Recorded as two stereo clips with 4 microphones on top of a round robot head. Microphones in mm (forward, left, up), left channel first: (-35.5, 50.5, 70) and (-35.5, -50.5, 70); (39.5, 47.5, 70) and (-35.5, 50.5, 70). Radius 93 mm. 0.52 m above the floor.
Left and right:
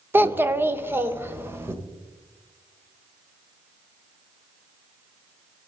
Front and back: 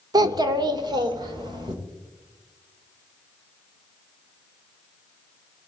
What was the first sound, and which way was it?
A child speaking, 160° right.